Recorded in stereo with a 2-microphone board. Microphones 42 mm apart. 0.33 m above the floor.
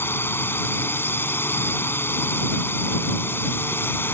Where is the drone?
65° left (ahead or behind).